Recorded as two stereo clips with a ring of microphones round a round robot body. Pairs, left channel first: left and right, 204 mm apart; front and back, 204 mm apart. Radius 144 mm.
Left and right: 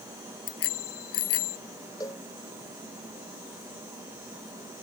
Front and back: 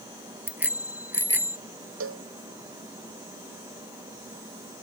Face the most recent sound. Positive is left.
turn(degrees=170)